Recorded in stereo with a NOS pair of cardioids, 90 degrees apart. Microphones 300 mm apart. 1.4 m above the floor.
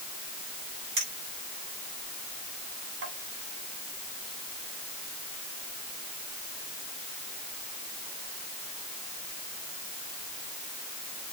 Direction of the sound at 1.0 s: 50° right.